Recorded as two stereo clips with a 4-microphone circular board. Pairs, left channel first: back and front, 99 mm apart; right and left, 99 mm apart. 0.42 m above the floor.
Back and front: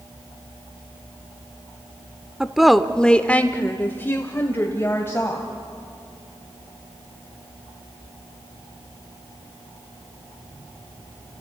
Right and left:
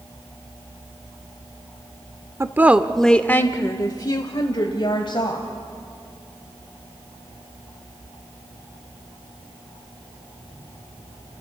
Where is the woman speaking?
75° left, 0.8 m; by 5.5 s 115° right, 2 m.